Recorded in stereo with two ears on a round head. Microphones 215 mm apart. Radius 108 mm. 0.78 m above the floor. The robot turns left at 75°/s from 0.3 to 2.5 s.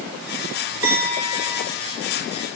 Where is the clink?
120° right, 2.0 m; by 1.7 s straight behind, 2.0 m.